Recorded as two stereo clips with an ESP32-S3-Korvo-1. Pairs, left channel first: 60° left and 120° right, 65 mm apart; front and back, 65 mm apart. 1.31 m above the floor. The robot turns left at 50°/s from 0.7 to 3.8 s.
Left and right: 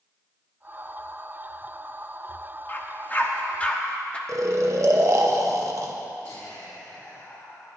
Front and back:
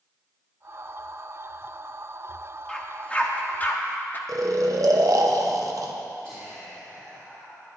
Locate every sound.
2.7 s a dog barking: 65° left, 0.8 m; by 4.2 s 5° left, 0.8 m
4.3 s snoring: 155° right, 0.8 m
6.2 s whispering: 75° left, 2.5 m